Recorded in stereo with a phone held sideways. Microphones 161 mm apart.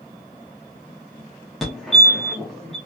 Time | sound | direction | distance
1.6 | a fire alarm | centre (ahead or behind) | 1.2 m